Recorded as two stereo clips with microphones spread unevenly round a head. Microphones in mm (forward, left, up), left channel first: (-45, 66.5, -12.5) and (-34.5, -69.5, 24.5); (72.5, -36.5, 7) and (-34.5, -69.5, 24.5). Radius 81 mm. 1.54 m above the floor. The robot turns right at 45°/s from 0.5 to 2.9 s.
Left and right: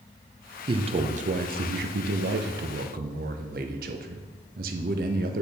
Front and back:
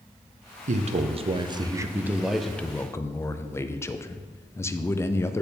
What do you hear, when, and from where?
0.7 s a man speaking: 145° right, 0.6 m; by 5.4 s 45° right, 0.6 m